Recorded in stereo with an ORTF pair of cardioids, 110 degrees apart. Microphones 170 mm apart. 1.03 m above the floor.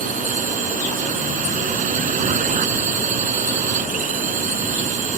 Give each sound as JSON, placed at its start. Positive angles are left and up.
{"t": 0.0, "sound": "a drone", "azimuth_deg": -50}